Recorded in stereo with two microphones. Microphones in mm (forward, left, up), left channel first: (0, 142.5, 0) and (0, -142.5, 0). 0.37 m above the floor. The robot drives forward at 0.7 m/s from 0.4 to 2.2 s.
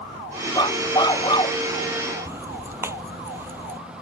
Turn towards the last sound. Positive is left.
turn(degrees=-10)  # may be behind; listen again after turning